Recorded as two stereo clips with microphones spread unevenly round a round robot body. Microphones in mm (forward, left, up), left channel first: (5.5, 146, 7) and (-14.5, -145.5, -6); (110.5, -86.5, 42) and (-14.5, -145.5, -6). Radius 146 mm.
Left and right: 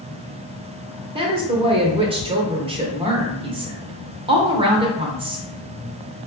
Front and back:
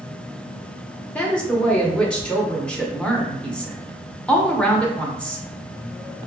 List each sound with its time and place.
1.1 s a woman speaking: 100° right, 0.9 m